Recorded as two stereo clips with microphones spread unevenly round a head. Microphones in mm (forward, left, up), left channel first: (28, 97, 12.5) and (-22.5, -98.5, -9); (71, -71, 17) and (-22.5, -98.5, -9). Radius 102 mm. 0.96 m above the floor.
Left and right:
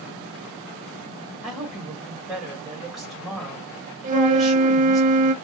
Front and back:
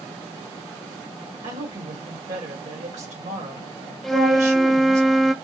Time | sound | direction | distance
1.4 | a woman speaking | 165° left | 2.5 m
4.0 | a flute | 85° right | 0.6 m